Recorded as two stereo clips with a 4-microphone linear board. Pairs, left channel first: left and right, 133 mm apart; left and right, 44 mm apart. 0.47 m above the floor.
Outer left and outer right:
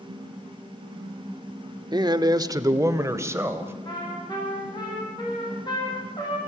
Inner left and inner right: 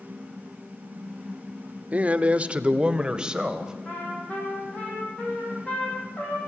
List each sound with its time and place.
1.9 s a man speaking: 30° right (ahead or behind), 0.9 m; by 3.7 s 20° right (ahead or behind), 2 m
3.9 s a trumpet: 35° left (ahead or behind), 6 m